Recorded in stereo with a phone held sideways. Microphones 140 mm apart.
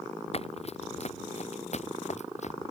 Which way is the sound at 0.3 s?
45° left (ahead or behind).